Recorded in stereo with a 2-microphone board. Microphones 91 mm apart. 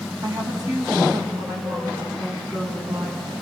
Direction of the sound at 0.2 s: 50° right (ahead or behind).